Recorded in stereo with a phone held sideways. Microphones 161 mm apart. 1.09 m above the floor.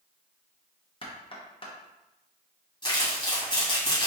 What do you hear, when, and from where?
1.0 s knocking: 35° left (ahead or behind), 0.9 m
2.8 s crumpling: 30° left (ahead or behind), 2 m